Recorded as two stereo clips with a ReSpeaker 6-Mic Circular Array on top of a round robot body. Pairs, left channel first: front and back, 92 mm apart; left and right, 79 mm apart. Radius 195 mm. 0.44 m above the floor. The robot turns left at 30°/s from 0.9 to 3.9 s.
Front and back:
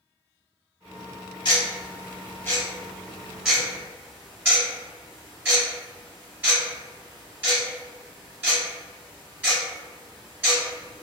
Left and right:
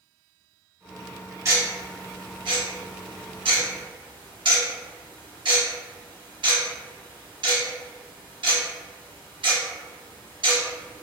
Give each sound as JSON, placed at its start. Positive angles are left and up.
{"t": 1.4, "sound": "ticking", "azimuth_deg": -35, "distance_m": 1.7}